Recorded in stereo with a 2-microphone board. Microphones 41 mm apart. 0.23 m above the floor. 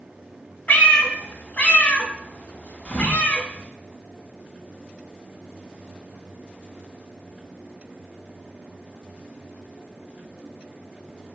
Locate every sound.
0.7 s a cat meowing: 45° left (ahead or behind), 0.6 m
2.9 s a thud: 35° left (ahead or behind), 0.9 m